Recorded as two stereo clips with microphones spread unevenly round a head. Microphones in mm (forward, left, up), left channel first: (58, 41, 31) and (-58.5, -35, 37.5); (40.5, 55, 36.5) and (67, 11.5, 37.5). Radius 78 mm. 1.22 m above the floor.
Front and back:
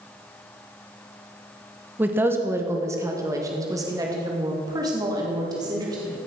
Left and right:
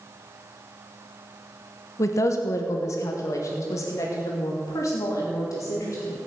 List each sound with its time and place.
2.0 s a woman speaking: 135° left, 1.1 m; by 6.2 s 150° left, 3.5 m